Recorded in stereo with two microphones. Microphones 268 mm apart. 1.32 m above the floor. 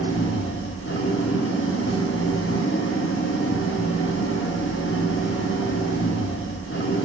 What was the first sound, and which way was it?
An engine running, 50° left (ahead or behind).